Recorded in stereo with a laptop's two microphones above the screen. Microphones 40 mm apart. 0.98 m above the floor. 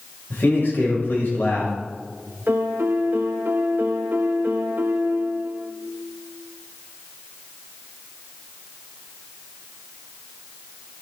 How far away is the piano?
About 1.1 m.